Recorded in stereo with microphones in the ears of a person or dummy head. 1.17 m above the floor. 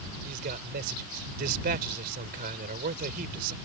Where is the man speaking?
50° right (ahead or behind).